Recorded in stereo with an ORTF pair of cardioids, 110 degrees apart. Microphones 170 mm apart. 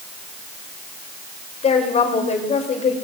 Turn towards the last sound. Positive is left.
turn(degrees=40)